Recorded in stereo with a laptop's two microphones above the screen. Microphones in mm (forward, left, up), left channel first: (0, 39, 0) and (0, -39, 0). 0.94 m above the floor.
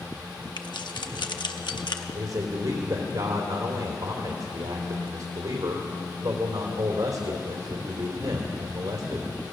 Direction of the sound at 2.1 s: 65° right (ahead or behind).